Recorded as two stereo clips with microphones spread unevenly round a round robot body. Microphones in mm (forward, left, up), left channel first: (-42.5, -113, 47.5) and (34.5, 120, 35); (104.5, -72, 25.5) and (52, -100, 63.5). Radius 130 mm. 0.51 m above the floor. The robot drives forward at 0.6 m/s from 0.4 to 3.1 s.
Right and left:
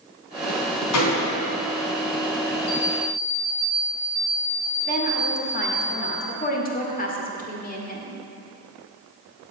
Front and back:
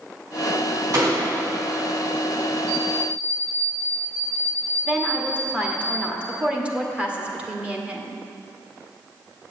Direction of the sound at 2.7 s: 150° right.